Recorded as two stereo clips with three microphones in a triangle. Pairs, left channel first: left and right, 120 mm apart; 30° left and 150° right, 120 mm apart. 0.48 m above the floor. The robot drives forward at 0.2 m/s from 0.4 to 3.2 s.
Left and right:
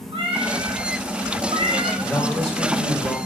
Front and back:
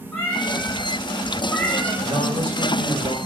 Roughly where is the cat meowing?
Ahead right.